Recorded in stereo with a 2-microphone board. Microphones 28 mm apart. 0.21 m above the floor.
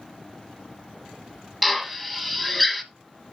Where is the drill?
Centre (ahead or behind), 1.3 m.